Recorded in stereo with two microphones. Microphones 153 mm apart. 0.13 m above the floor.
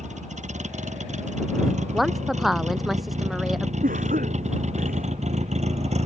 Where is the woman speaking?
Centre (ahead or behind).